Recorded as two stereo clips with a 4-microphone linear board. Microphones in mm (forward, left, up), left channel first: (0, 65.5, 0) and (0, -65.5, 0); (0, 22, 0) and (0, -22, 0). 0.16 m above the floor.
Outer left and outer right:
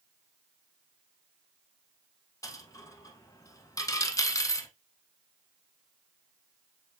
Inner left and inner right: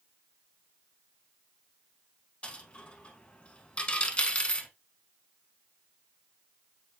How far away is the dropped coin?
About 0.6 m.